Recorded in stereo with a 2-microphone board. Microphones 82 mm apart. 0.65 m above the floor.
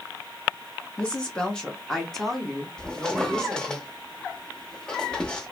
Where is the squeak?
10° left (ahead or behind), 0.6 m.